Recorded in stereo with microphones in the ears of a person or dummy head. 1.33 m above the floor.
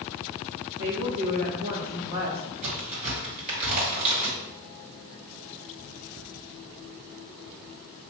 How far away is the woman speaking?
About 1.0 m.